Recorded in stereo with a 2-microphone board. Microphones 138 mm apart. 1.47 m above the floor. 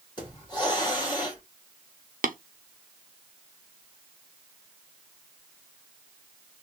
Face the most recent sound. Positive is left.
turn(degrees=-80)